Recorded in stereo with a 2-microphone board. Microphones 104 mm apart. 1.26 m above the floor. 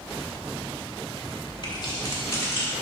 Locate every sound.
1.6 s keys jangling: 45° left (ahead or behind), 2 m; by 2.7 s 20° left (ahead or behind), 2 m